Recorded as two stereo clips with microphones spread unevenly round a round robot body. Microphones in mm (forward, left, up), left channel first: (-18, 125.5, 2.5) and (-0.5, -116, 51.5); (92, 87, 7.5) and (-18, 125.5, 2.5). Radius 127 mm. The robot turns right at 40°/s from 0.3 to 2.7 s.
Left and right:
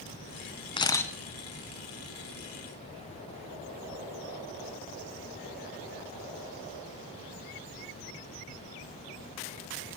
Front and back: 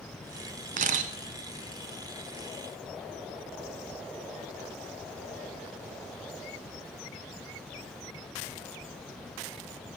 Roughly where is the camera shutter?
Behind.